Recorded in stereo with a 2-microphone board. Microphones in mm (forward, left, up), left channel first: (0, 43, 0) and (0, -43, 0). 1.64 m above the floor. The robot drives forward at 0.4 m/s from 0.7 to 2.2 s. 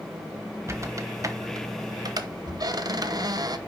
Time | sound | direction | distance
0.7 | a squeak | 35° right (ahead or behind) | 1.0 m